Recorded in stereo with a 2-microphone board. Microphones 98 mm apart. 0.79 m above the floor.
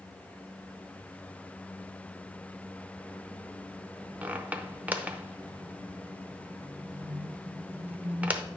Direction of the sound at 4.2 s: 15° right (ahead or behind).